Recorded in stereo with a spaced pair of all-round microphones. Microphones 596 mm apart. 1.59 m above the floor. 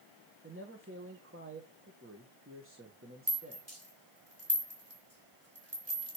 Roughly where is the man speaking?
Right.